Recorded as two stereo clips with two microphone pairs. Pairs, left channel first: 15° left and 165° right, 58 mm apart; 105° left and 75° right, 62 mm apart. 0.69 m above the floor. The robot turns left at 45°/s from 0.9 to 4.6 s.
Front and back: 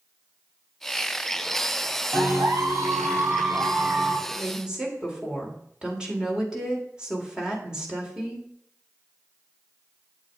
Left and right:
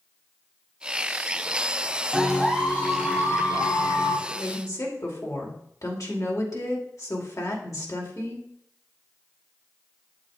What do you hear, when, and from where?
2.1 s a clap: 150° right, 6 m; by 4.2 s 120° left, 6 m
4.3 s a woman speaking: 130° left, 2.5 m; by 8.5 s 115° left, 2.5 m